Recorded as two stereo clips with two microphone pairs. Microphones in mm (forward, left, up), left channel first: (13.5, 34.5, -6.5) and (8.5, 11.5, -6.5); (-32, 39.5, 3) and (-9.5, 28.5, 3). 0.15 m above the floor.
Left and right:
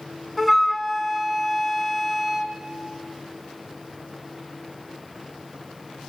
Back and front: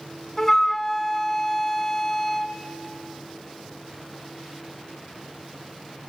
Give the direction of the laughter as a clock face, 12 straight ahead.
No laughter in this recording.